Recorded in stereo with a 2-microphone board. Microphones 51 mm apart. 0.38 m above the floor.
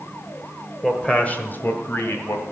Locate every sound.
0.8 s a man speaking: 10° left (ahead or behind), 1.3 m; by 2.4 s 60° left (ahead or behind), 2.5 m